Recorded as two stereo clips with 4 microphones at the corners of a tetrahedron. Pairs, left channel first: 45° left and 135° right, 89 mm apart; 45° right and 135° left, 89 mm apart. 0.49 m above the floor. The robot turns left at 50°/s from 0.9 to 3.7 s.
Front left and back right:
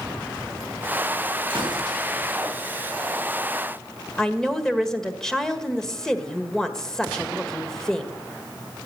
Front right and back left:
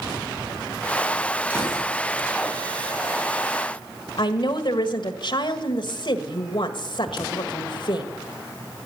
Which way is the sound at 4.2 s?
40° right.